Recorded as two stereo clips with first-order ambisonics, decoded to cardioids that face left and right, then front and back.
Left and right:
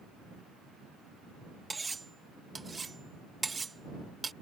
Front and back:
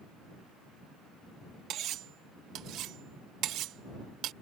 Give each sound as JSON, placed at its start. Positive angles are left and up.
{"t": 1.7, "sound": "cutlery clinking", "azimuth_deg": -165}